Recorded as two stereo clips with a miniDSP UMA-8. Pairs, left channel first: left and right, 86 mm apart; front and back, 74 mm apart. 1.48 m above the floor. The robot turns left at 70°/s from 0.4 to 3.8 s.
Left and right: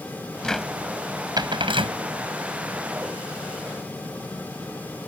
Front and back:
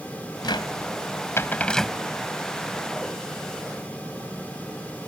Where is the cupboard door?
10° left; by 2.0 s 95° right.